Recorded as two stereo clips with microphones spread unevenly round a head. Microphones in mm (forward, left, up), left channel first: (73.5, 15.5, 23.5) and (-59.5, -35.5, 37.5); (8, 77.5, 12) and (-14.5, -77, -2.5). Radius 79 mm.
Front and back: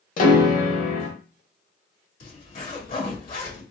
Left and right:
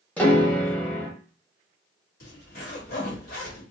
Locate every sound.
0.2 s a piano: straight ahead, 1.1 m
2.2 s a zipper: 45° left, 2.5 m